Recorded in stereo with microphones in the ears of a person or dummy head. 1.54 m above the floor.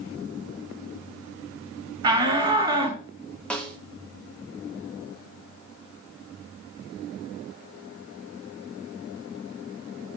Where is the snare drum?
Centre (ahead or behind), 0.8 m.